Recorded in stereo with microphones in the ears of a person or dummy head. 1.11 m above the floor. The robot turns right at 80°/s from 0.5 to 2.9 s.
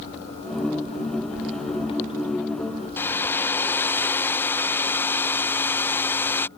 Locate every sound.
3.0 s a hair dryer: 5° left (ahead or behind)